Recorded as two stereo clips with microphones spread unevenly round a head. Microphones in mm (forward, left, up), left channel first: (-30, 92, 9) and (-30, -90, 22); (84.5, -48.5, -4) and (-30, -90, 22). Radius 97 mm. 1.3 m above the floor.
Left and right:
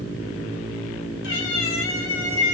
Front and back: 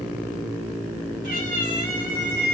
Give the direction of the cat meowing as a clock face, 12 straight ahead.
8 o'clock.